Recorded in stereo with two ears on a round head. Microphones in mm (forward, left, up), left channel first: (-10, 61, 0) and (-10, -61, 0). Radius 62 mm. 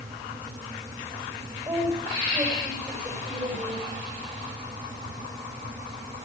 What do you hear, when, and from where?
1.6 s a woman speaking: 15° right (ahead or behind), 6 m